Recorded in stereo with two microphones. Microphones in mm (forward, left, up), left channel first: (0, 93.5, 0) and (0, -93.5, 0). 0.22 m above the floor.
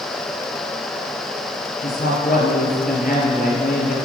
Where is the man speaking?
50° left (ahead or behind), 5 m.